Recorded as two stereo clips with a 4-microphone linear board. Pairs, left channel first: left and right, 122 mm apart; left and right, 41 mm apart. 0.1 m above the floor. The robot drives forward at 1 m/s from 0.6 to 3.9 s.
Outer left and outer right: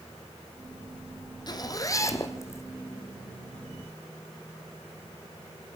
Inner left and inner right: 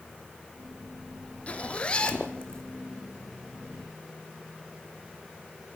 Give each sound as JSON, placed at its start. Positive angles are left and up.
{"t": 1.5, "sound": "a zipper", "side_deg": 35, "distance_m": 1.5}